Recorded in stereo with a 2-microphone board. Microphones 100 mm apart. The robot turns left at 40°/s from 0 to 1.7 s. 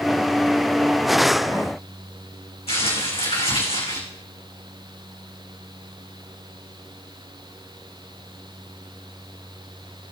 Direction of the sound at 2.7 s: 80° left.